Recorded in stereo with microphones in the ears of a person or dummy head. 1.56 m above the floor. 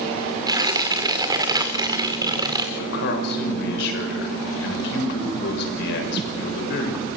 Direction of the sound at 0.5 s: 20° right (ahead or behind).